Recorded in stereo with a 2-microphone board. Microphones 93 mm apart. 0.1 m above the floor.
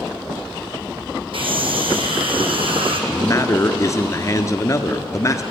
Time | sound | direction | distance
1.3 | a scream | 65° right (ahead or behind) | 4.5 m
3.1 | a man speaking | 35° left (ahead or behind) | 1.4 m